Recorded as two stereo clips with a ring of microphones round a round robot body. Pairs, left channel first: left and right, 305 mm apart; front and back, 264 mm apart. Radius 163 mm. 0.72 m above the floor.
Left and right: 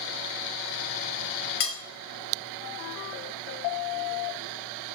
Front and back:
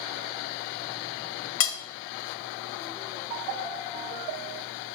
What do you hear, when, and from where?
1.6 s cutlery clinking: 30° left, 0.7 m